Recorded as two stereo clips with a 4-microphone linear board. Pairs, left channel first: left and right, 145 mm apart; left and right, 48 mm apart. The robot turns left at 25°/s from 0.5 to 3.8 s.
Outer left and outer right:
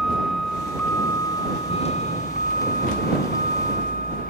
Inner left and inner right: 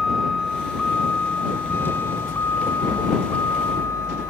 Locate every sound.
0.0 s a vehicle: centre (ahead or behind); by 4.3 s 75° left (ahead or behind)